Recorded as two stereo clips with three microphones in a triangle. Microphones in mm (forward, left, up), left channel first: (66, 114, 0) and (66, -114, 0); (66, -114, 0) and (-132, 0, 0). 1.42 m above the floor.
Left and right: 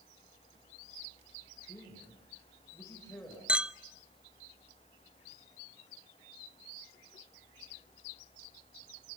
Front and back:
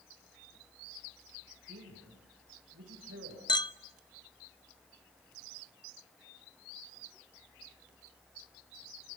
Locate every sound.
1.7 s a man speaking: 170° left, 6.5 m
3.5 s a clink: 15° right, 0.5 m